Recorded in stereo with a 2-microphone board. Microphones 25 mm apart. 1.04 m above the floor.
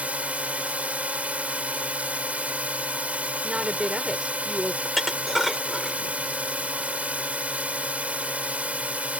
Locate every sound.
0.0 s a drone: 80° right
3.4 s a woman speaking: 40° right (ahead or behind)
4.8 s dishes clattering: 5° right (ahead or behind)